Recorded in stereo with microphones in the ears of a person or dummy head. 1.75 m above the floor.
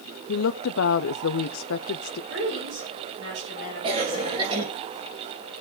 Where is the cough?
35° right (ahead or behind), 2.5 m.